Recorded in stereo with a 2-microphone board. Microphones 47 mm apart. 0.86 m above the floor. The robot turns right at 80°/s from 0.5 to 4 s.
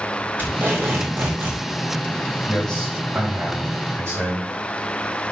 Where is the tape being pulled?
140° right, 3 m; by 1.6 s 50° right, 3 m.